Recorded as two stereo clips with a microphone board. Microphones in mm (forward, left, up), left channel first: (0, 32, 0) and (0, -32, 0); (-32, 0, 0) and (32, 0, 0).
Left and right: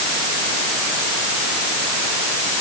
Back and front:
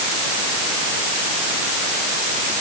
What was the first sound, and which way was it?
Only background noise.